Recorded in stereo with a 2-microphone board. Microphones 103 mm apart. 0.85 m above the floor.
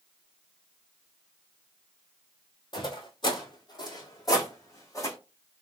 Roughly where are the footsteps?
Left.